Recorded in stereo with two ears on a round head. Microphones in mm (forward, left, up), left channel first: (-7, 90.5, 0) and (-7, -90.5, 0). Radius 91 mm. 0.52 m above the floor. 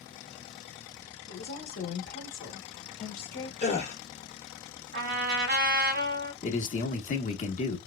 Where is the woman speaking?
50° left (ahead or behind), 1.1 m.